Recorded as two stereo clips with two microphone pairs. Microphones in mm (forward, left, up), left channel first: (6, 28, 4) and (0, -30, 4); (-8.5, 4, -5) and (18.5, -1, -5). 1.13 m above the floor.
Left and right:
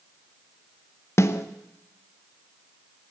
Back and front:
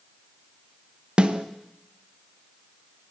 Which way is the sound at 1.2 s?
45° left.